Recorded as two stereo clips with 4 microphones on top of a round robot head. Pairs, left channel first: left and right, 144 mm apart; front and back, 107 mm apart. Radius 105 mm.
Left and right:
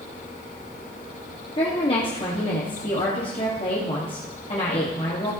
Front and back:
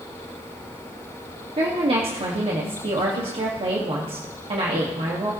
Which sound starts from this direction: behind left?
A woman speaking, at 1.6 s.